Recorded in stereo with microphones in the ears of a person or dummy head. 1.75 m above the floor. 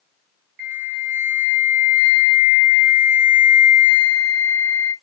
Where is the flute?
55° right (ahead or behind), 1.2 m.